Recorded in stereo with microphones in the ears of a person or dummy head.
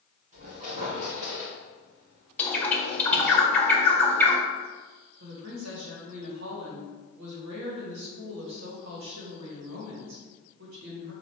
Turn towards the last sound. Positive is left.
turn(degrees=-80)